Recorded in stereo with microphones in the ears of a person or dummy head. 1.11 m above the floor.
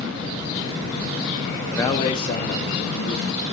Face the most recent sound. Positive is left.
turn(degrees=60)  # may be behind; listen again after turning